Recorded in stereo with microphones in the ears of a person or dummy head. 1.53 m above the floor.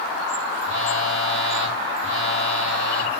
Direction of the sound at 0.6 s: 75° right (ahead or behind).